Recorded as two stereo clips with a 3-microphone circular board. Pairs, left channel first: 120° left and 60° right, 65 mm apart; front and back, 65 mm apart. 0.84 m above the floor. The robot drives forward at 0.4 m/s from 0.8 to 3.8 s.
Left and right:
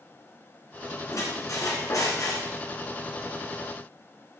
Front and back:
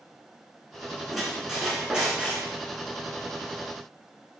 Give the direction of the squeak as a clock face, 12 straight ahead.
9 o'clock.